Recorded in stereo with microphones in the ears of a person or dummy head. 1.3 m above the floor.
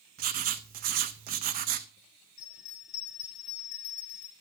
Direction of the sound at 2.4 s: 40° left (ahead or behind).